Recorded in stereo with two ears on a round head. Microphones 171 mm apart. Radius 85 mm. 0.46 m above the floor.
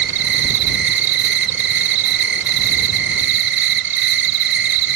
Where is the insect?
65° right (ahead or behind).